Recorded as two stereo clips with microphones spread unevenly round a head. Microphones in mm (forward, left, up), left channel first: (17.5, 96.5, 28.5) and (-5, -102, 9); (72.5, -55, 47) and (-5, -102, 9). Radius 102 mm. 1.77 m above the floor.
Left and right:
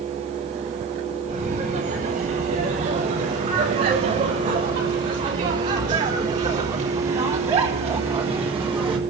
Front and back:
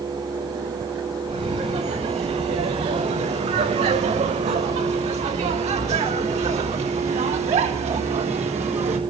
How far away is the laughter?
About 8.5 m.